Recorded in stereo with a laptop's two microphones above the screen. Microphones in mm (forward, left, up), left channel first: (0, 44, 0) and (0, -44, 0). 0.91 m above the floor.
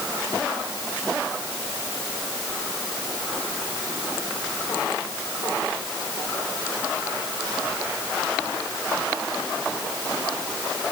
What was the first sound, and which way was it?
Only background noise.